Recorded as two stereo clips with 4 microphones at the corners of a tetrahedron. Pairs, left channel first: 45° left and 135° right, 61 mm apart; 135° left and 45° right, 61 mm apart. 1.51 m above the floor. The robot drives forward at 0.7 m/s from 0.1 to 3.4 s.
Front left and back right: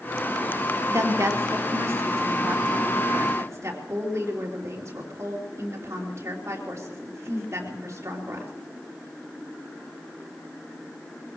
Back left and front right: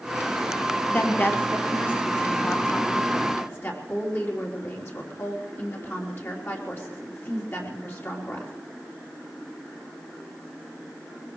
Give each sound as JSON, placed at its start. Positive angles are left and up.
{"t": 0.9, "sound": "a woman speaking", "azimuth_deg": -170, "distance_m": 1.7}